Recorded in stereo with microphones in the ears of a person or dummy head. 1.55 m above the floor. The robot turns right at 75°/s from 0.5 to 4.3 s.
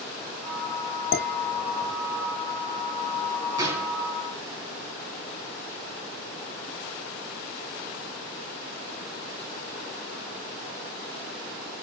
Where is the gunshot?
20° right, 5 m; by 4.0 s 10° left, 5 m.